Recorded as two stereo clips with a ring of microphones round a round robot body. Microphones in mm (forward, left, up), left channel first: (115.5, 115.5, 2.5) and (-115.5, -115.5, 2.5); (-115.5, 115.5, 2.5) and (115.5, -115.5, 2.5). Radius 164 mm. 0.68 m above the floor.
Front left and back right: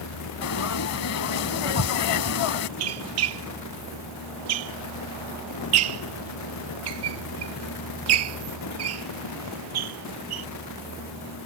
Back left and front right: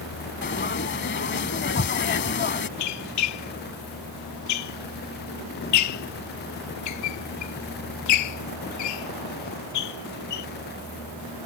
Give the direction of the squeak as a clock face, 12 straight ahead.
6 o'clock.